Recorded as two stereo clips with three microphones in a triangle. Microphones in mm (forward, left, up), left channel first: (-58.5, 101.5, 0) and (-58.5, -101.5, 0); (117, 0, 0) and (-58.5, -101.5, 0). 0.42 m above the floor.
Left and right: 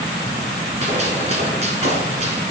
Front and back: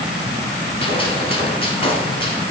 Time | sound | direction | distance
0.8 | a gunshot | 35° right | 1.2 m